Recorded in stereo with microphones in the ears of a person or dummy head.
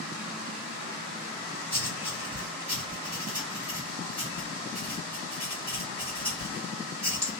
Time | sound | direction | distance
1.7 | writing | 20° right (ahead or behind) | 1.2 m